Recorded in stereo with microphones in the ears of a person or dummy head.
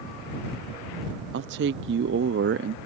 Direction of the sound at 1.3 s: 55° right (ahead or behind).